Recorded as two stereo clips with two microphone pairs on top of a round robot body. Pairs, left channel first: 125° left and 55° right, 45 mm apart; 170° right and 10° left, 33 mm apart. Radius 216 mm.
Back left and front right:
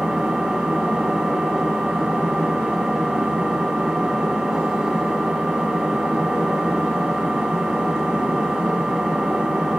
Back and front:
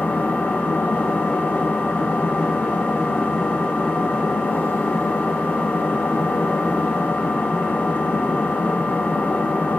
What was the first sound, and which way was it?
An engine running, 135° right.